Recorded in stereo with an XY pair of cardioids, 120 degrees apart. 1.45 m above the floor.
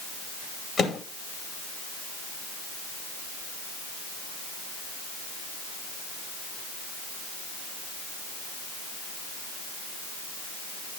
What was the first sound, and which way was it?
A microwave, 40° left.